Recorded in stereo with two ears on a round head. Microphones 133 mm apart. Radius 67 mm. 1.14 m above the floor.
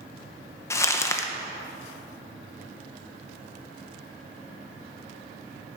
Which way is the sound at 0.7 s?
20° left (ahead or behind).